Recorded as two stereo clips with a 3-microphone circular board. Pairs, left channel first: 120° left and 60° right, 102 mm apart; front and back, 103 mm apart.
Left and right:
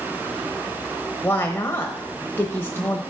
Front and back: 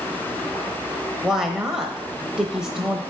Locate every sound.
1.2 s a woman speaking: 105° left, 1.0 m